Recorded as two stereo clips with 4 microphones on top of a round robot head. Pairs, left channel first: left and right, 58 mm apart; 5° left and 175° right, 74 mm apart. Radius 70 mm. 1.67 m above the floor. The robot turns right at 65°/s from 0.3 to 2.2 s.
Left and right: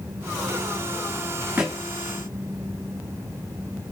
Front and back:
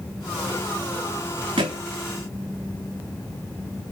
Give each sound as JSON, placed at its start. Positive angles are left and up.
{"t": 1.6, "sound": "a thud", "azimuth_deg": -165, "distance_m": 1.5}